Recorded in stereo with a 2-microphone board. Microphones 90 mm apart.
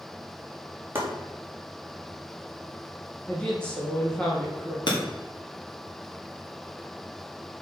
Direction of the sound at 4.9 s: 55° left (ahead or behind).